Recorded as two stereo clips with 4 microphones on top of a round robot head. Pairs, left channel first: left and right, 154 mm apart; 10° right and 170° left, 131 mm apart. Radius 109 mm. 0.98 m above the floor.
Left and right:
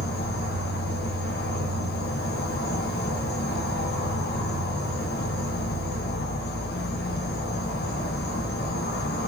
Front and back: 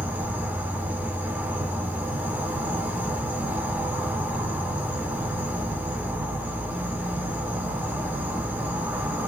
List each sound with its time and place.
0.0 s an insect: 90° left, 0.7 m